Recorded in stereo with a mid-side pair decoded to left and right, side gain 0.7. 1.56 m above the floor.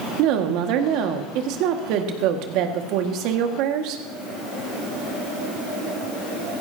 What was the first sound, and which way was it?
A woman speaking, 65° right.